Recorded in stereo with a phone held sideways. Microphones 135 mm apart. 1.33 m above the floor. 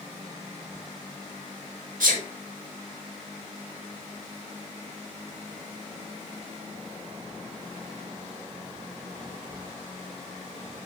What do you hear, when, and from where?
2.0 s a sneeze: 85° right, 2 m